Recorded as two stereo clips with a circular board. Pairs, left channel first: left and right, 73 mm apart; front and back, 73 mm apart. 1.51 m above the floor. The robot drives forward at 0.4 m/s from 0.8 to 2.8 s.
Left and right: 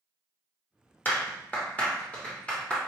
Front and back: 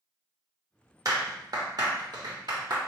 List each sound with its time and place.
1.1 s a clap: 150° left, 1.0 m; by 2.8 s 165° left, 1.6 m